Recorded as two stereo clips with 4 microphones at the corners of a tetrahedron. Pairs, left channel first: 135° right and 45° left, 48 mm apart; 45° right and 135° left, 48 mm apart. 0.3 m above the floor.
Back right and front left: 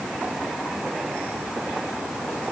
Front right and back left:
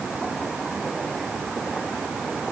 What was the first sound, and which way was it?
Only background noise.